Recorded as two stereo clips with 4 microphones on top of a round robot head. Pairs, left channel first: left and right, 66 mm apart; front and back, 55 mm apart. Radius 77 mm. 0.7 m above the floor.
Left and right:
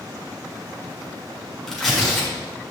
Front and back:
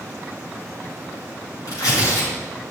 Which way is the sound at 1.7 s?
5° left.